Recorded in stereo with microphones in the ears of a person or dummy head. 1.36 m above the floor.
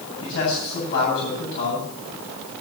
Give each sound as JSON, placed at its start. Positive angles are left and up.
{"t": 0.2, "sound": "a man speaking", "side_deg": 60, "distance_m": 8.5}